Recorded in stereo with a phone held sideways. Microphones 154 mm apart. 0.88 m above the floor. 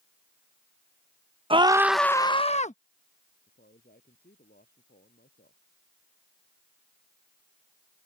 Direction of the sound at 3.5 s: 85° left.